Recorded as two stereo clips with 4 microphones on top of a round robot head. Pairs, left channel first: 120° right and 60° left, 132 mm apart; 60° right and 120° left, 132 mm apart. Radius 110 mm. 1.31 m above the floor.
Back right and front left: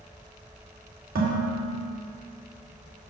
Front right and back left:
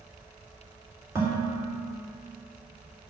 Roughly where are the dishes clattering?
Ahead left.